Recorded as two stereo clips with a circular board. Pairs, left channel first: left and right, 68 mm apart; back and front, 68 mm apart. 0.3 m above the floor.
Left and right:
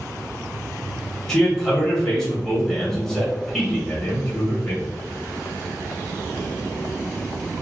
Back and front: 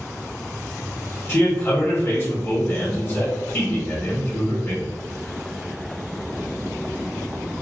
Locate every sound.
1.3 s a man speaking: 170° left, 1.3 m